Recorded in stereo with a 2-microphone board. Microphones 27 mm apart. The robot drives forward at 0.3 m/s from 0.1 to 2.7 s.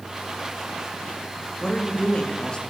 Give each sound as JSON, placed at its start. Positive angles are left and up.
{"t": 1.6, "sound": "a woman speaking", "side_deg": 35, "distance_m": 1.7}